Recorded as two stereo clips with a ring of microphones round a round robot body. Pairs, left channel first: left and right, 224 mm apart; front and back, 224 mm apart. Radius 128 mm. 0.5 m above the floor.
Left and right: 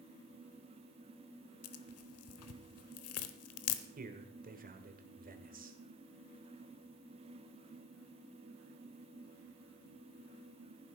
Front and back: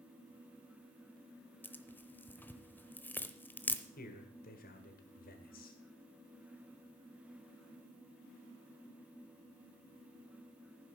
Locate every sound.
1.6 s tearing paper: 80° left, 0.9 m
4.0 s a man speaking: 45° right, 1.8 m